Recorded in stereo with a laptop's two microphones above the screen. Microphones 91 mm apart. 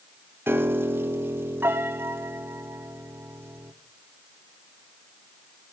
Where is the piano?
25° right (ahead or behind), 0.6 m.